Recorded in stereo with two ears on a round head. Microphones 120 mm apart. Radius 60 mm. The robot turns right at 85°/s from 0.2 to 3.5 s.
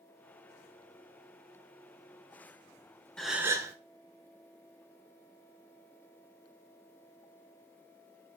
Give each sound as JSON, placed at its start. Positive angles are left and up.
{"t": 3.2, "sound": "a gasp", "side_deg": 5, "distance_m": 1.0}